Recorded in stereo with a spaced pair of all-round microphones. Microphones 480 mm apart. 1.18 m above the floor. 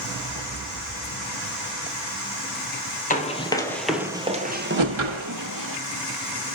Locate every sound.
3.1 s running footsteps: 15° left (ahead or behind), 1.6 m; by 5.8 s 45° right (ahead or behind), 1.6 m
4.8 s a whoosh: 75° right (ahead or behind), 1.2 m